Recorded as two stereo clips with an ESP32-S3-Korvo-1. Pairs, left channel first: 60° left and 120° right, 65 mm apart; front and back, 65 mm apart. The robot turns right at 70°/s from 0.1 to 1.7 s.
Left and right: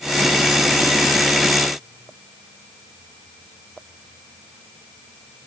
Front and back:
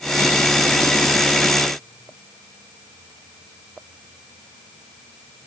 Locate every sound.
Only background noise.